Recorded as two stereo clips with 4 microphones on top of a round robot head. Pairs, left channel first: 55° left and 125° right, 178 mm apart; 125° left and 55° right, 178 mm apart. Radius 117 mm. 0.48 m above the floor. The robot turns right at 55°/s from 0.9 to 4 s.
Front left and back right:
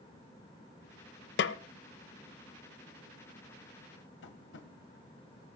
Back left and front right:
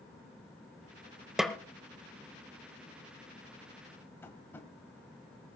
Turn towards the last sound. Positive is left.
turn(degrees=45)